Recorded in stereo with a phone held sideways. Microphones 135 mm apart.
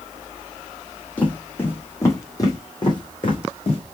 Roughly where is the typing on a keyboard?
I don't hear typing on a keyboard.